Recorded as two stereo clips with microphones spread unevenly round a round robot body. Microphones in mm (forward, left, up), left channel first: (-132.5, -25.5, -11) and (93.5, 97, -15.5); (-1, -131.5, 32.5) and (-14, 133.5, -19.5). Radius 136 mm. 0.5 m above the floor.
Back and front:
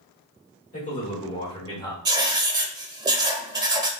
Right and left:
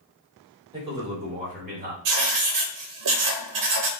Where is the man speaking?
155° left, 1.9 m; by 1.9 s 135° left, 2.0 m.